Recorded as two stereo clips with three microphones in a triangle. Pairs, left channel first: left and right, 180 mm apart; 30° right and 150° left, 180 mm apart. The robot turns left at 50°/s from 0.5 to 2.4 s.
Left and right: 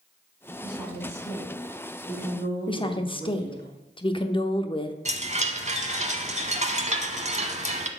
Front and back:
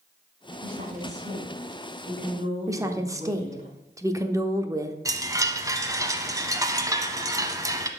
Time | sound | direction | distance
0.6 | a woman speaking | 170° right | 4 m
2.7 | a woman speaking | 100° left | 0.7 m
5.0 | a chime | 140° right | 0.8 m